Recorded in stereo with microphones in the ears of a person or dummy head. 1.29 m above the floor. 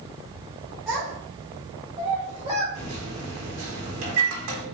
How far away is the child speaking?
About 1.3 m.